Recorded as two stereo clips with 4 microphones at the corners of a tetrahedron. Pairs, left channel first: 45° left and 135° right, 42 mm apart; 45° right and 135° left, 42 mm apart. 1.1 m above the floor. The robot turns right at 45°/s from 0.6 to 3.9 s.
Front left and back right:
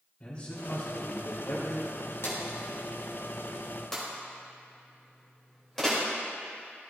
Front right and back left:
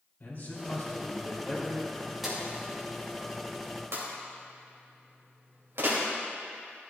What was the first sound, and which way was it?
A man speaking, 15° right.